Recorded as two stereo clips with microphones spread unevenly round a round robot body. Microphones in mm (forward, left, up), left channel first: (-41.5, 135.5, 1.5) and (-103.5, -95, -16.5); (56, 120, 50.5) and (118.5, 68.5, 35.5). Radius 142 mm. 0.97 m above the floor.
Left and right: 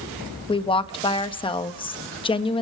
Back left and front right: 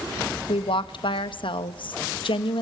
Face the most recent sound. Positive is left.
turn(degrees=145)